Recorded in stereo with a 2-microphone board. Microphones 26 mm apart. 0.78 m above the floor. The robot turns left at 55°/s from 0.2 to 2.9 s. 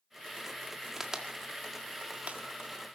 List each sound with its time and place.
1.0 s a crack: 20° right (ahead or behind), 1.8 m; by 2.4 s 65° right (ahead or behind), 1.8 m